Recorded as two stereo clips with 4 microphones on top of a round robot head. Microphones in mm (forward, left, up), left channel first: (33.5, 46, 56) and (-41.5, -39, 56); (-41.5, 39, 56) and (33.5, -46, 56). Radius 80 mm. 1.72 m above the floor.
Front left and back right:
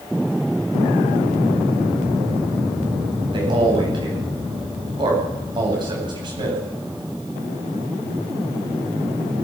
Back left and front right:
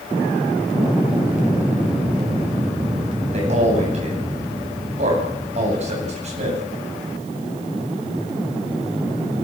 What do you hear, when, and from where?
3.3 s a man speaking: 80° right, 9.5 m